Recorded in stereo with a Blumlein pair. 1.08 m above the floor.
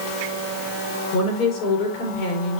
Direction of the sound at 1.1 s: 45° left.